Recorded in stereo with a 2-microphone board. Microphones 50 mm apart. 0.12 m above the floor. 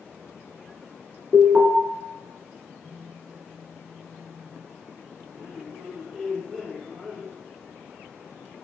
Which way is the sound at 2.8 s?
10° left (ahead or behind).